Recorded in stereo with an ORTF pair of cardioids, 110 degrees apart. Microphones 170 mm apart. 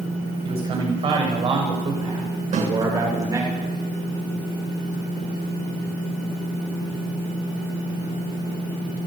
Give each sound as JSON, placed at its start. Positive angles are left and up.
{"t": 0.5, "sound": "a man speaking", "azimuth_deg": -35, "distance_m": 9.0}
{"t": 2.5, "sound": "a snare drum", "azimuth_deg": -45, "distance_m": 7.0}